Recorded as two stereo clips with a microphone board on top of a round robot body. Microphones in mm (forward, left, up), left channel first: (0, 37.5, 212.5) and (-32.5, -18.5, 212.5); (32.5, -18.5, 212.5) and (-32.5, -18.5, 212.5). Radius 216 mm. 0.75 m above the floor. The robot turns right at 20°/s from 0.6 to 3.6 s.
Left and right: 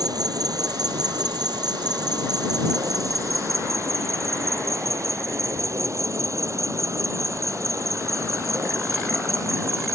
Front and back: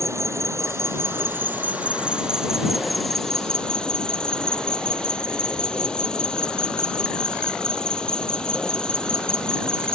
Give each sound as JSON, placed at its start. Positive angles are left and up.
{"t": 0.0, "sound": "an insect", "azimuth_deg": -135}